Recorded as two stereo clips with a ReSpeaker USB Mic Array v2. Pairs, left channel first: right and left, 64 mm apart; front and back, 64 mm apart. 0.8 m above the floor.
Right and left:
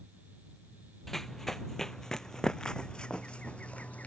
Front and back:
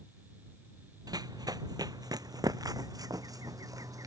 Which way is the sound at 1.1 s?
175° right.